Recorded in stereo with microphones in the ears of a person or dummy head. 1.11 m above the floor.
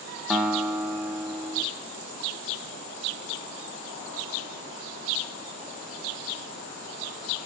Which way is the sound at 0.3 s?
5° right (ahead or behind).